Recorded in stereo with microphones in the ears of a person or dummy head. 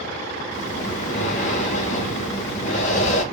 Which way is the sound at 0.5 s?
35° left (ahead or behind).